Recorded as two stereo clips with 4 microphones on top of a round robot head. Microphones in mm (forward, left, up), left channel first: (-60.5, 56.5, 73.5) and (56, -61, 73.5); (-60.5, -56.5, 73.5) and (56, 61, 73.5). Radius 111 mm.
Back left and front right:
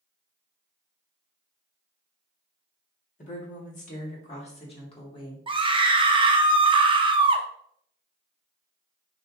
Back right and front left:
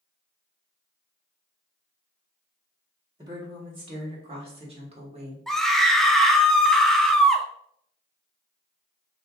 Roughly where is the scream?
Ahead right.